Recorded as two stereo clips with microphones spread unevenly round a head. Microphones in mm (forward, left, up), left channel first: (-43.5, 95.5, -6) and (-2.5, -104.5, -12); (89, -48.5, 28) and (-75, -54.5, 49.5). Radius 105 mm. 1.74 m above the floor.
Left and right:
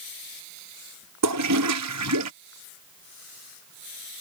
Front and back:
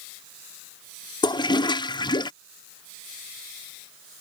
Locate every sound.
1.2 s a toilet flushing: 60° right